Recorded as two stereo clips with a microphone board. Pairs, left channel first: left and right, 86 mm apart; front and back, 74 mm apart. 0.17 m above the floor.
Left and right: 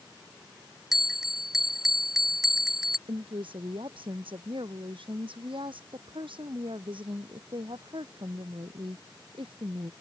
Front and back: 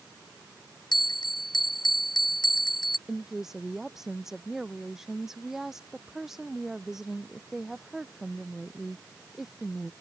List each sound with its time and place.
0.9 s a bell: 5° right
3.1 s a woman speaking: 95° right